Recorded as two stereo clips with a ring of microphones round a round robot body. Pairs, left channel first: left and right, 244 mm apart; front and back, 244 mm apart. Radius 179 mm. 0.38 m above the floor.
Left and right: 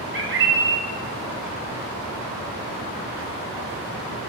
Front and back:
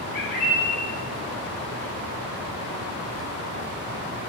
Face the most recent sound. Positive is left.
turn(degrees=-55)